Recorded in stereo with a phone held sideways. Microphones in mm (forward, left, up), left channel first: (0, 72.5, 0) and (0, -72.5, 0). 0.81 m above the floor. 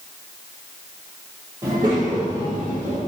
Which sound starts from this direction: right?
A child speaking, at 1.6 s.